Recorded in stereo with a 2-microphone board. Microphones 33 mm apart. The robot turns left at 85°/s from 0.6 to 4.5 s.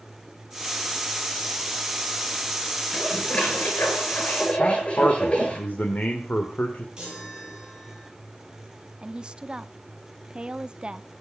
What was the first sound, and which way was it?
Dishes clattering, 170° left.